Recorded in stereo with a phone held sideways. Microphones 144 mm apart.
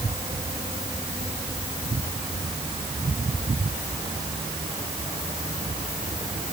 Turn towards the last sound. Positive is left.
No sound to turn to.